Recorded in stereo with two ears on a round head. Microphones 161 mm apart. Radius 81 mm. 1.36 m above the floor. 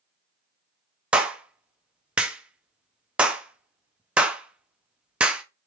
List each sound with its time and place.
1.1 s a clap: 5° right (ahead or behind), 0.5 m